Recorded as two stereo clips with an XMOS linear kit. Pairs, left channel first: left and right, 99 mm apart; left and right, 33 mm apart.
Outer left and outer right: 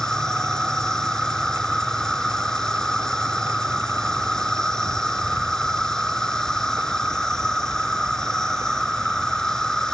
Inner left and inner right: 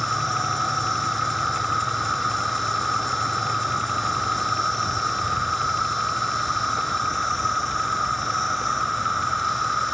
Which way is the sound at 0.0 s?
5° left (ahead or behind).